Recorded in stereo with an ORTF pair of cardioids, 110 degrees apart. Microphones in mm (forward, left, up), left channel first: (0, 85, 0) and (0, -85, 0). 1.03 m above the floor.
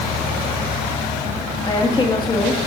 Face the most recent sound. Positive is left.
turn(degrees=25)